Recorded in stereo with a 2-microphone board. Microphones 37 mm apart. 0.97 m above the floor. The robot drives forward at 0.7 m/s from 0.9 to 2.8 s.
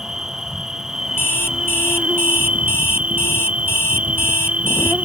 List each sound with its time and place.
0.0 s an insect: 15° right (ahead or behind); by 5.0 s 35° right (ahead or behind)
1.2 s an alarm clock: 75° left (ahead or behind); by 4.9 s 80° left